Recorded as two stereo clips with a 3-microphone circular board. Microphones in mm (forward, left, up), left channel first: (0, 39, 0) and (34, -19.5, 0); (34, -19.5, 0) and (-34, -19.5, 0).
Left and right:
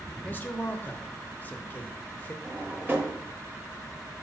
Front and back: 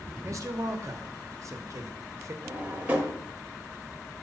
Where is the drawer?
120° right, 1.0 m.